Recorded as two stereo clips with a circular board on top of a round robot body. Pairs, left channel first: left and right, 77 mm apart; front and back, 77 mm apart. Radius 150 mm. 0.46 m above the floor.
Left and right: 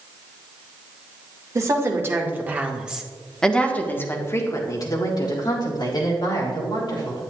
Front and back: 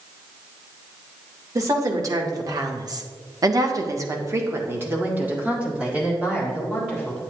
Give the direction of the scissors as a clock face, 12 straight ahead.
I don't hear scissors.